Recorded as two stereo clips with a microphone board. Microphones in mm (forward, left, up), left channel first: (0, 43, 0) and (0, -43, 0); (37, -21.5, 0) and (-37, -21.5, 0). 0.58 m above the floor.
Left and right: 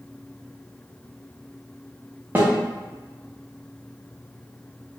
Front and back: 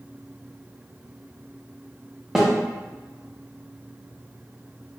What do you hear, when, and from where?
2.4 s a snare drum: 100° right, 0.8 m